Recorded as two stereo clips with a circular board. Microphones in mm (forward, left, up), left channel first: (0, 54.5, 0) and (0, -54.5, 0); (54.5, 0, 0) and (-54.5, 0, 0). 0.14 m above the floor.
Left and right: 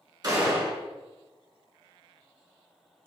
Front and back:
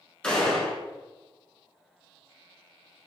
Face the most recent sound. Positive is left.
turn(degrees=-75)